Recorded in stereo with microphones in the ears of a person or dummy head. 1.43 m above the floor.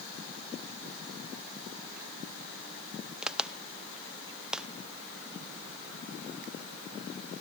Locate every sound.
3.2 s a crack: 5° right (ahead or behind), 0.6 m